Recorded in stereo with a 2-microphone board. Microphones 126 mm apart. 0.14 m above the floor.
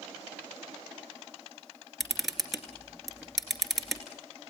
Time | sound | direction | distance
2.0 | a camera shutter | centre (ahead or behind) | 2 m